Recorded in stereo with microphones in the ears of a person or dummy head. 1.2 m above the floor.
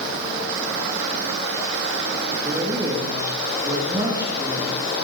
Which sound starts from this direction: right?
A man speaking, at 2.4 s.